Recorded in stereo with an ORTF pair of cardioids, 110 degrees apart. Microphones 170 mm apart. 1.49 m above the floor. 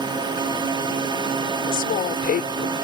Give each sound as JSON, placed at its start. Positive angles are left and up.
{"t": 0.0, "sound": "a drone", "azimuth_deg": -25}
{"t": 1.7, "sound": "a woman speaking", "azimuth_deg": 60}